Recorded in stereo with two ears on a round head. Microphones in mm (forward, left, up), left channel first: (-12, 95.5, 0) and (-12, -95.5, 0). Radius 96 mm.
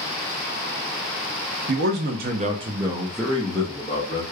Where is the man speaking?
55° right (ahead or behind), 0.7 m; by 4.2 s 25° left (ahead or behind), 1.0 m.